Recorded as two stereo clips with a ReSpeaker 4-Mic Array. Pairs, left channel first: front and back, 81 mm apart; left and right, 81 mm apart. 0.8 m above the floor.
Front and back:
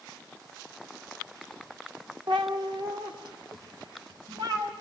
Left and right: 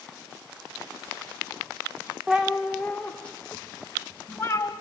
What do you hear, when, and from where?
2.3 s a cat meowing: 165° right, 1.2 m; by 4.7 s 150° left, 3 m